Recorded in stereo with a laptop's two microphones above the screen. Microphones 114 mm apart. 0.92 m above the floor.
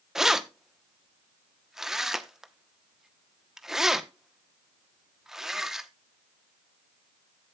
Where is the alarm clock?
I don't hear an alarm clock.